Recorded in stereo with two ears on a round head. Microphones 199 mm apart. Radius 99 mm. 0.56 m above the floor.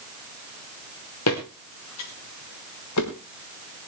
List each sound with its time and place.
1.3 s footsteps: 80° left, 4 m; by 3.1 s 85° left, 5.5 m